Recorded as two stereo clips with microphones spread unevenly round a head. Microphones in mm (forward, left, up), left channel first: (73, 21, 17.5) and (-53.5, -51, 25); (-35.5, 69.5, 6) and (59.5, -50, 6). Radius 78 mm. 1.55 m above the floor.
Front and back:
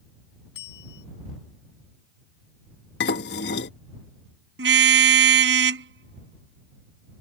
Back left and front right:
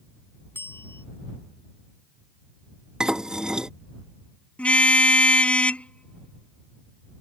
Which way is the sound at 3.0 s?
35° left.